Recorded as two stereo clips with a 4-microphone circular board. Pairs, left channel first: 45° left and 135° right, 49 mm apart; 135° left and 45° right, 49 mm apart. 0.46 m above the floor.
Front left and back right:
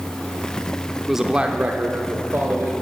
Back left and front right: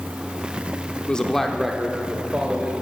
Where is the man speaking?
145° left, 0.7 m; by 2.8 s 110° right, 1.6 m.